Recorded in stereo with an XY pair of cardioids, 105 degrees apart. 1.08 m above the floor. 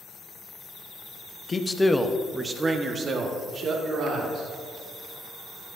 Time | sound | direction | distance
1.5 | a man speaking | 30° left | 1.0 m